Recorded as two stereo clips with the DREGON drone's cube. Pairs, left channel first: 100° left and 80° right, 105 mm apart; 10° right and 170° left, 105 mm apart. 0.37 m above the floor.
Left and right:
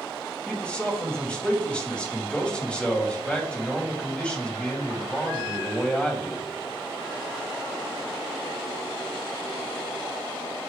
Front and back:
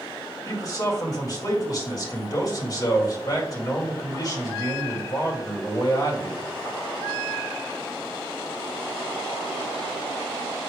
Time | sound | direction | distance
0.5 | a man speaking | 25° left | 2.5 m